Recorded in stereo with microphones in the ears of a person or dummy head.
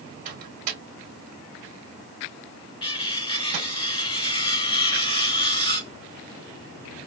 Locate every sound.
0.2 s a microwave: 40° right (ahead or behind), 2 m
2.8 s cutlery clinking: 25° left (ahead or behind), 0.9 m